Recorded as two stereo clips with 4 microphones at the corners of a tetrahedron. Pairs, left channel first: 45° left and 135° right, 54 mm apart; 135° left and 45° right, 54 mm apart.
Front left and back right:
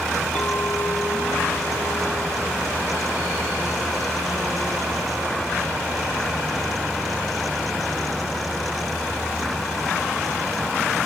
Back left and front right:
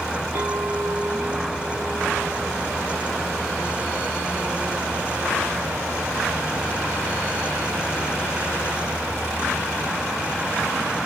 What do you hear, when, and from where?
0.3 s a clink: 25° right, 1.6 m